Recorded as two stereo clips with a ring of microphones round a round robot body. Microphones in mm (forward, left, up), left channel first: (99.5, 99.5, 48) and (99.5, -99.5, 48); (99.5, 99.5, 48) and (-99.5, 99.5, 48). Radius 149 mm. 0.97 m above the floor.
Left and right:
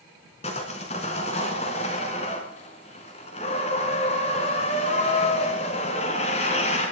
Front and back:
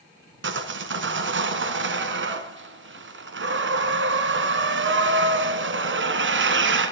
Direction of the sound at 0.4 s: 160° left.